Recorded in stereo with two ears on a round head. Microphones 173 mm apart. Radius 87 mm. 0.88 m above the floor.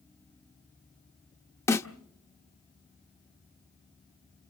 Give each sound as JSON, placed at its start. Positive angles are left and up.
{"t": 1.7, "sound": "a snare drum", "side_deg": 15, "distance_m": 0.6}